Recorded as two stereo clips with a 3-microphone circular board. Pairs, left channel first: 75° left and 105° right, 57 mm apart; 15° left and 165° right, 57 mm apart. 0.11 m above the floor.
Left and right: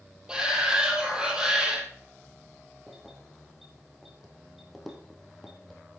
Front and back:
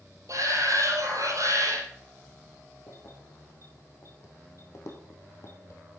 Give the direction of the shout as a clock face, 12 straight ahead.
6 o'clock.